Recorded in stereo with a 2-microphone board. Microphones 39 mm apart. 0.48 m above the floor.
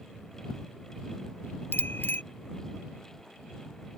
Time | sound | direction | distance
1.7 | a bicycle bell | 60° left (ahead or behind) | ?